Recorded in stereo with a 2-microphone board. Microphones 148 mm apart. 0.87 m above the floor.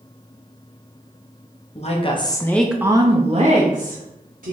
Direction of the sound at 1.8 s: 50° left (ahead or behind).